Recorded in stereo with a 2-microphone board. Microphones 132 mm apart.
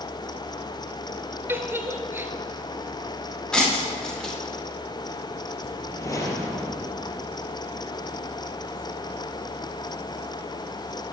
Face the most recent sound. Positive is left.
turn(degrees=25)  # may be behind; listen again after turning